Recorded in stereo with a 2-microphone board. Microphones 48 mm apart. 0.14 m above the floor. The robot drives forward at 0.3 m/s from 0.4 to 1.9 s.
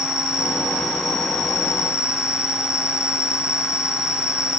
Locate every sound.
0.0 s an insect: 5° right (ahead or behind), 2.5 m; by 4.6 s 10° right (ahead or behind), 1.8 m